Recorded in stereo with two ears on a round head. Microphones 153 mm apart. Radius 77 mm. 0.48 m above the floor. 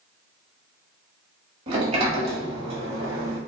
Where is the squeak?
I don't hear a squeak.